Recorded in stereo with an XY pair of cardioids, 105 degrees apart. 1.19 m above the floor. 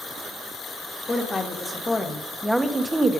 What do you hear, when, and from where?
1.1 s a woman speaking: 30° left, 1.4 m; by 3.2 s 30° right, 0.8 m